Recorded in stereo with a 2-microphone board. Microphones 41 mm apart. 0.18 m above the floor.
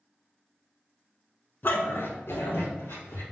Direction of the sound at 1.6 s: 55° left (ahead or behind).